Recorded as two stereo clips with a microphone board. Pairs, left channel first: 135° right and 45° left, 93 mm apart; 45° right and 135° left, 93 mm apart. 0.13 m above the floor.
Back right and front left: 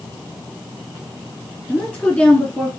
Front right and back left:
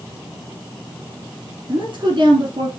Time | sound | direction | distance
1.7 | a woman speaking | 155° left | 2.5 m